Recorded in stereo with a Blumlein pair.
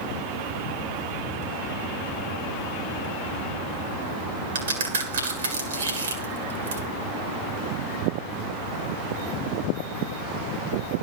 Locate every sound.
4.5 s a crack: 65° right, 1.9 m